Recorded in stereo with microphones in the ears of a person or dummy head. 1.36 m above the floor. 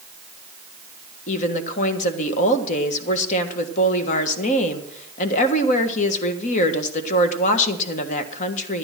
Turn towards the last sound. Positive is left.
turn(degrees=40)  # may be behind; listen again after turning